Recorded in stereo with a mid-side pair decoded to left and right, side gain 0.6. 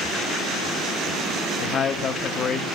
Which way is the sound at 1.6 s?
50° left.